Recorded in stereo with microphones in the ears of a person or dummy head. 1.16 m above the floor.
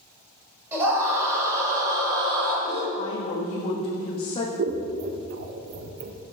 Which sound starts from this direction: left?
A woman speaking, at 3.0 s.